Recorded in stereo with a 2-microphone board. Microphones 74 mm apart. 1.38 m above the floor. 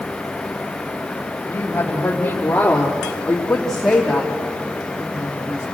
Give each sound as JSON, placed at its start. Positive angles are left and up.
{"t": 1.5, "sound": "a woman speaking", "side_deg": 35, "distance_m": 3.0}